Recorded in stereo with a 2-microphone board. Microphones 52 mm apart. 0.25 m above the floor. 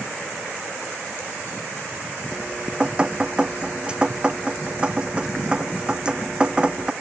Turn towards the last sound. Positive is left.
turn(degrees=-20)  # may be behind; listen again after turning